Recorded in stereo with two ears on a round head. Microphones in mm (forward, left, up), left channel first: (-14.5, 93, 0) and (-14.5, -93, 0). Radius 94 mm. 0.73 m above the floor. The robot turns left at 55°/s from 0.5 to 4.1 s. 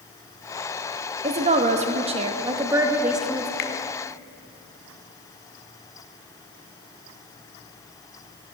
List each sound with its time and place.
1.2 s a woman speaking: 70° right, 0.8 m; by 3.5 s 170° left, 0.8 m
3.6 s a finger snap: 50° left (ahead or behind), 0.8 m; by 3.7 s 40° left (ahead or behind), 0.8 m